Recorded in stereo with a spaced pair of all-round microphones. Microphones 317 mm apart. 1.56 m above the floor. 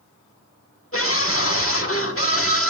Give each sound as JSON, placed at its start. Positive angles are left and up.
{"t": 0.9, "sound": "a scream", "side_deg": 45, "distance_m": 1.5}